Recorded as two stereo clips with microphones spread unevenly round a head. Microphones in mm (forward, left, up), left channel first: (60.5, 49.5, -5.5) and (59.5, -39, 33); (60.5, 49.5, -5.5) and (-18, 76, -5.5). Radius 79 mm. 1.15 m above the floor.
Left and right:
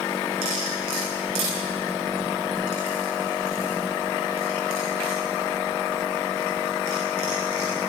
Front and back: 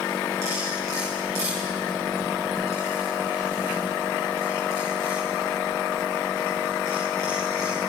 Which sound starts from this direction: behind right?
Cutlery clinking, at 0.4 s.